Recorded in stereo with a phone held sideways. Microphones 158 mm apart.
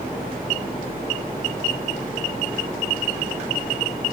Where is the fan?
70° right (ahead or behind), 2.5 m.